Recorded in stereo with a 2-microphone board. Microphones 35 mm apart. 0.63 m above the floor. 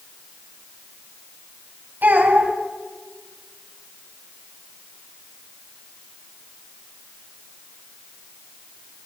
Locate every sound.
2.0 s a child speaking: 70° right (ahead or behind), 3 m